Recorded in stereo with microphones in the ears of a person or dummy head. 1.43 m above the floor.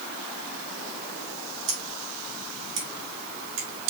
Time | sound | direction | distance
1.7 | scissors | 70° right (ahead or behind) | 2.5 m